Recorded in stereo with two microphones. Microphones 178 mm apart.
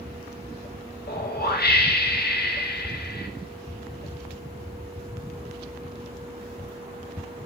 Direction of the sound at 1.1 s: 65° left (ahead or behind).